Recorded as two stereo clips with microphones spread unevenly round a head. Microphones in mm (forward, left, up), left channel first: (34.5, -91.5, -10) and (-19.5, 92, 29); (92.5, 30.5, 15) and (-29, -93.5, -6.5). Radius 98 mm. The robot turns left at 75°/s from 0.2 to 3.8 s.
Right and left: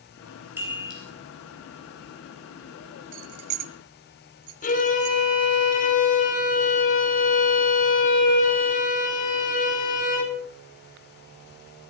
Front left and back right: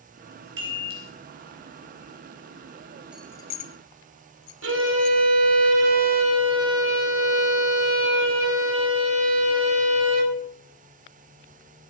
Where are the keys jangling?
140° left, 0.7 m; by 5.2 s 90° left, 0.7 m.